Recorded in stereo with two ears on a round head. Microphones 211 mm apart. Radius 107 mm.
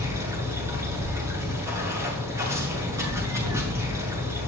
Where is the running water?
15° right (ahead or behind), 8 m.